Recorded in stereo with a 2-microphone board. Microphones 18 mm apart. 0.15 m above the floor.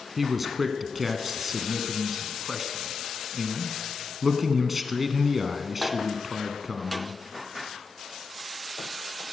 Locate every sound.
0.2 s a man speaking: 10° right (ahead or behind), 1.1 m